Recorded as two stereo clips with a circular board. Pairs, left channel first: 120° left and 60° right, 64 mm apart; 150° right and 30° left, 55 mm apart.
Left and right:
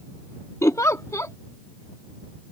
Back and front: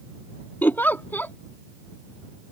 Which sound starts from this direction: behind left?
A giggle, at 0.6 s.